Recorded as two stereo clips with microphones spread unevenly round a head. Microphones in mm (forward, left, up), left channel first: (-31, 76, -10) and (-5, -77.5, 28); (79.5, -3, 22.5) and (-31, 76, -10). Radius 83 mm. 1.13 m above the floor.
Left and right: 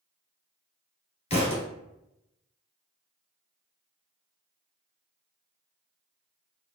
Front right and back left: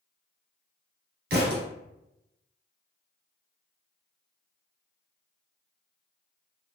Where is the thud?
155° left, 1.6 m.